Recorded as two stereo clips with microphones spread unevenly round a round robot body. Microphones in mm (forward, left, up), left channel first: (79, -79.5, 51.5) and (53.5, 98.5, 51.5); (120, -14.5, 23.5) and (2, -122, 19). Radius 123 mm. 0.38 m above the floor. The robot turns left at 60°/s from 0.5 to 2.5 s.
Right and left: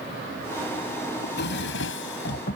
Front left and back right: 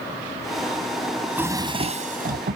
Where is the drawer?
50° right; by 2.6 s 130° right.